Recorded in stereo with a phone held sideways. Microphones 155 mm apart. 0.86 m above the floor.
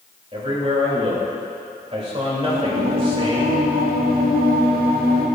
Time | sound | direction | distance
0.3 | a man speaking | 40° right (ahead or behind) | 3 m
2.4 | singing | 75° right (ahead or behind) | 1.3 m